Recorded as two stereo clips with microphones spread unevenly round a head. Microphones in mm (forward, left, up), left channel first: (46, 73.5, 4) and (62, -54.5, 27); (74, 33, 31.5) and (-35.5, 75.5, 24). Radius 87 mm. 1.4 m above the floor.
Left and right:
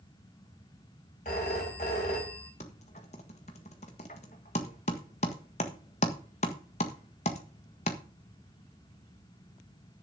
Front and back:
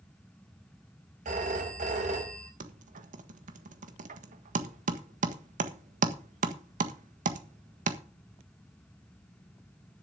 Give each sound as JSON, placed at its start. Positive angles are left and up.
{"t": 1.2, "sound": "a phone ringing", "azimuth_deg": 150, "distance_m": 4.5}
{"t": 2.6, "sound": "typing on a keyboard", "azimuth_deg": 150, "distance_m": 1.5}